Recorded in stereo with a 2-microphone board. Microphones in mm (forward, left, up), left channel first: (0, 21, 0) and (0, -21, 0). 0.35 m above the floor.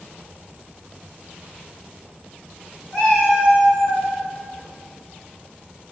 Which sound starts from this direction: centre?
A cat meowing, at 2.9 s.